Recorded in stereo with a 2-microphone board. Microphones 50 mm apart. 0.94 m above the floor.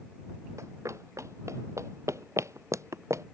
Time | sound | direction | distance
0.6 | running footsteps | 85° right | ?